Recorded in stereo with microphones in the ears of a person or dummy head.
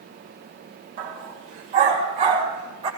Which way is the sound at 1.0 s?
45° right (ahead or behind).